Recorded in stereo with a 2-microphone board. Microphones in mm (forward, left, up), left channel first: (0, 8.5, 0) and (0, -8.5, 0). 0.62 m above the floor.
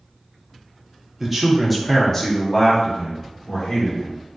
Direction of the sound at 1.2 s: 10° right (ahead or behind).